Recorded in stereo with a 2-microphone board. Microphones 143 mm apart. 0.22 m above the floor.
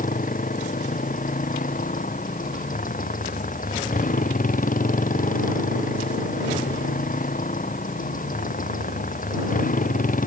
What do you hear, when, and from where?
0.0 s a motorcycle: 70° left (ahead or behind)